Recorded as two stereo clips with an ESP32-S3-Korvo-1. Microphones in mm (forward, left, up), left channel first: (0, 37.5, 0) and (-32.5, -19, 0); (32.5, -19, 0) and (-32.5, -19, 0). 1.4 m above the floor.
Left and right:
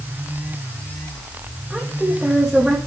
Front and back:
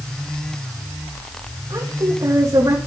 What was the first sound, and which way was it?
A woman speaking, 160° left.